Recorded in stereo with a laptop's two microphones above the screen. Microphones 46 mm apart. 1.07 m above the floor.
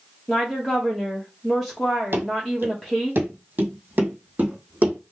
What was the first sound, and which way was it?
A woman speaking, centre (ahead or behind).